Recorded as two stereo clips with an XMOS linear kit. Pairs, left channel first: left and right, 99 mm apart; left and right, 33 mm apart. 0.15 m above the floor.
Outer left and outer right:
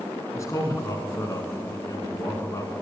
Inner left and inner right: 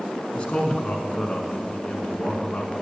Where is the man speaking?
35° left (ahead or behind), 1.3 m.